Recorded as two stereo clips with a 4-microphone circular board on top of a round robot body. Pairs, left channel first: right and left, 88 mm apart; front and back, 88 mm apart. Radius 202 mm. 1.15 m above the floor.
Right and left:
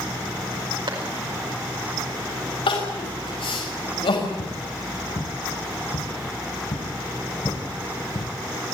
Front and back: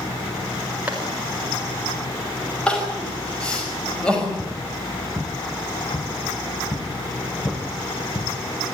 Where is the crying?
80° right, 5.5 m.